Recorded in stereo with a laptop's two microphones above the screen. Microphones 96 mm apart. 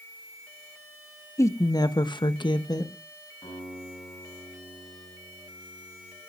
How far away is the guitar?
About 9.5 m.